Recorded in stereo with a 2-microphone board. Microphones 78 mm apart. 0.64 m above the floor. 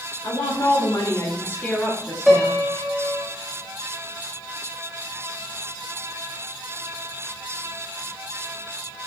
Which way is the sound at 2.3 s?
5° right (ahead or behind).